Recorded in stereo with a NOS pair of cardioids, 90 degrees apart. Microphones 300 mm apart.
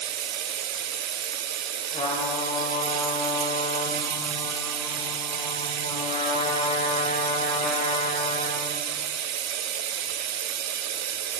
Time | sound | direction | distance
0.0 | running water | 60° right | 0.8 m
1.9 | a trumpet | 20° left | 4 m